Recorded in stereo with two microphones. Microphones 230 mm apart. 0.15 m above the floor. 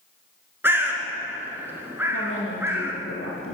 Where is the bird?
10° right (ahead or behind), 1.0 m.